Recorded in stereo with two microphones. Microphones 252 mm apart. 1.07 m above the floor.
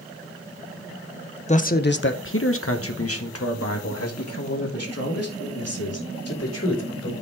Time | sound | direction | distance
1.5 | a man speaking | 25° left (ahead or behind) | 0.7 m